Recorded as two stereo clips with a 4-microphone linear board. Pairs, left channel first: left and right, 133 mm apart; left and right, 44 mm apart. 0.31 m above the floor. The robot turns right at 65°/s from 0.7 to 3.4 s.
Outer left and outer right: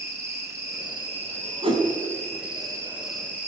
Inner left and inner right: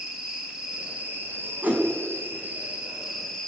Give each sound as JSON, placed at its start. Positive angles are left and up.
{"t": 0.0, "sound": "an insect", "azimuth_deg": -160, "distance_m": 4.0}
{"t": 1.6, "sound": "a whoosh", "side_deg": -45, "distance_m": 3.0}